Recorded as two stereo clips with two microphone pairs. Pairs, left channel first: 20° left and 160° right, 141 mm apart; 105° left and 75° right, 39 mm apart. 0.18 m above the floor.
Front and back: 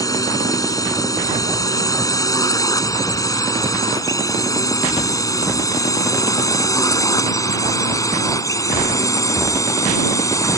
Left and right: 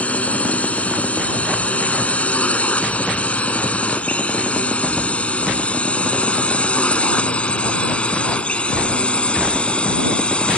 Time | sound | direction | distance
0.0 | a drone | 75° left | ?